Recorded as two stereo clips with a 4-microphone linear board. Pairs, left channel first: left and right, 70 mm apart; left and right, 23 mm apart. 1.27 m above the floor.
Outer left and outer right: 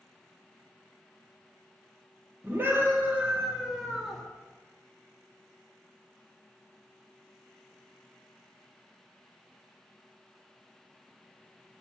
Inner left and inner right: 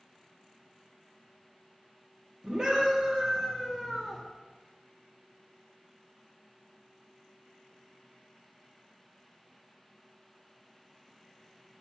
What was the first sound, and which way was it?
A scream, 35° right (ahead or behind).